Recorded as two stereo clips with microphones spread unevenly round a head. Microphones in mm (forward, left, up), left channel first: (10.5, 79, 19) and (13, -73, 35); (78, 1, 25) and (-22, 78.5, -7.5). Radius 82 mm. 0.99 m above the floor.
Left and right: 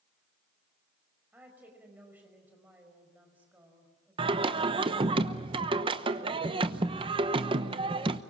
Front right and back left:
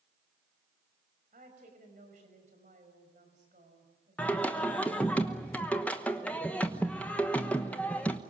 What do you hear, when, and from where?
1.3 s a woman speaking: 170° right, 5.5 m
4.2 s singing: 130° right, 1.0 m